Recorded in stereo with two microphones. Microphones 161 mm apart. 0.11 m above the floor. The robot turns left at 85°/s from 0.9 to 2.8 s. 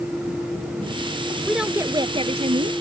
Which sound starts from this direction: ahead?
A woman speaking, at 1.4 s.